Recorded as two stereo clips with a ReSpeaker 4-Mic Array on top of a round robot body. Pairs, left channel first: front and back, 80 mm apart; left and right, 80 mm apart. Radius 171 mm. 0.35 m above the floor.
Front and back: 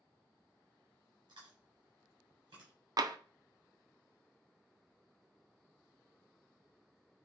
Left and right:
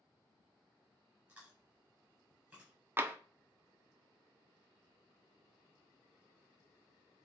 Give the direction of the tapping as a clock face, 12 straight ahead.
5 o'clock.